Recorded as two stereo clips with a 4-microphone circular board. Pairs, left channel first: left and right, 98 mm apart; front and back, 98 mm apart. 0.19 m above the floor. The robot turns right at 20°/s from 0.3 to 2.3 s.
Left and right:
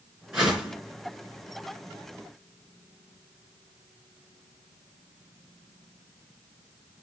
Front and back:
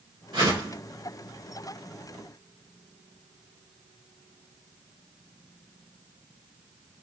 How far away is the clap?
No clap in this recording.